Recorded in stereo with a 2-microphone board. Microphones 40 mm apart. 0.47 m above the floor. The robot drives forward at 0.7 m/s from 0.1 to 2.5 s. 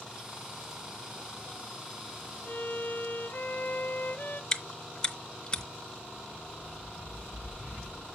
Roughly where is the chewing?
Left.